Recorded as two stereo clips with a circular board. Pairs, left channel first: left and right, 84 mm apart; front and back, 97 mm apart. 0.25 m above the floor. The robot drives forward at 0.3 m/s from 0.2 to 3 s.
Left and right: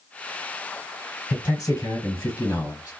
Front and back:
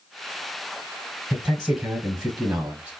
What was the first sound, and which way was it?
A man speaking, 105° left.